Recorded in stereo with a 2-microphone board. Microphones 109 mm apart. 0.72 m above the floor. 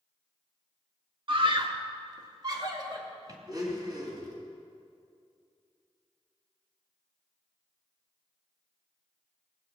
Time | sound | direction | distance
1.3 | a scream | 50° right (ahead or behind) | 1.2 m
3.5 | a blender | 35° right (ahead or behind) | 3 m